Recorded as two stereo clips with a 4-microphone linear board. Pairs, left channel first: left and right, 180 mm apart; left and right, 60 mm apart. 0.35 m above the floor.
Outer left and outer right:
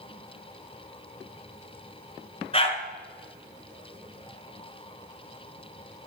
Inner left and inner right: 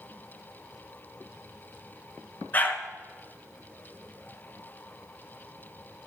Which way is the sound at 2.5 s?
35° left (ahead or behind).